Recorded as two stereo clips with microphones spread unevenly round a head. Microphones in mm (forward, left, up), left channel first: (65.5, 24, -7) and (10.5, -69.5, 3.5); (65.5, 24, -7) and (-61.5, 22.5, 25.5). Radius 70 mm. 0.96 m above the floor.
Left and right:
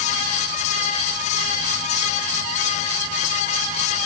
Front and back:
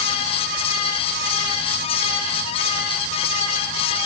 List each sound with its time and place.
Only background noise.